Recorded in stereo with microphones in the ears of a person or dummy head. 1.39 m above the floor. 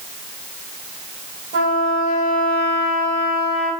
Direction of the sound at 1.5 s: 40° right (ahead or behind).